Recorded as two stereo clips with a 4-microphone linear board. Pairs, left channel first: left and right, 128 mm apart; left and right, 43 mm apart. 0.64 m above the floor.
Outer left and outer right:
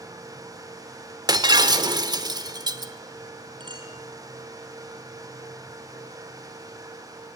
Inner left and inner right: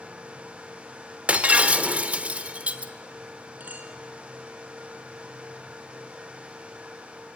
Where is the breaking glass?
30° right (ahead or behind), 1.1 m.